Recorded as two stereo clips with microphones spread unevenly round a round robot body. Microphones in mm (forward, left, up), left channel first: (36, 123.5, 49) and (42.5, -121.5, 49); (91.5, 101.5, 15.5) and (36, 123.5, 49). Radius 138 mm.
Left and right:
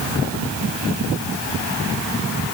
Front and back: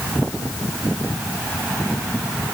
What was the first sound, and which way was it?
Only background noise.